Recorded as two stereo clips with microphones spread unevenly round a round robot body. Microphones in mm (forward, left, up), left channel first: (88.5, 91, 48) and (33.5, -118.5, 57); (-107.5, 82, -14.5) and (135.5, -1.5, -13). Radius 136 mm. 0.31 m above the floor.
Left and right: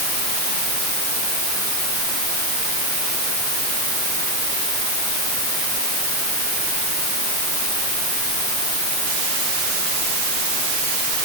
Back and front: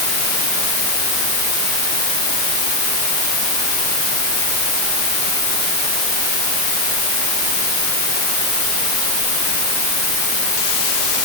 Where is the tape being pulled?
I don't hear tape being pulled.